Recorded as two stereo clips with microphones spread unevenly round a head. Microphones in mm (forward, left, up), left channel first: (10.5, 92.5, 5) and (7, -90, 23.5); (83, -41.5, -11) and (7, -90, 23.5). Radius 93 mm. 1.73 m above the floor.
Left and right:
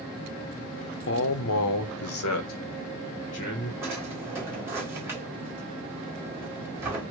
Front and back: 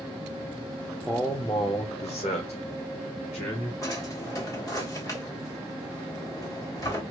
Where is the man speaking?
120° left, 0.8 m; by 3.7 s 60° left, 1.6 m.